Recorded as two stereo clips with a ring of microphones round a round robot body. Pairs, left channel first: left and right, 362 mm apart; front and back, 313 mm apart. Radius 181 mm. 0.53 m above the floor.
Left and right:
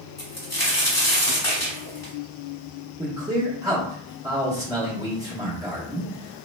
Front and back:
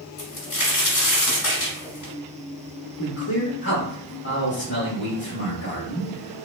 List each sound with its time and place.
0.2 s a crack: 15° left, 1.5 m
3.0 s a man speaking: 15° right, 1.0 m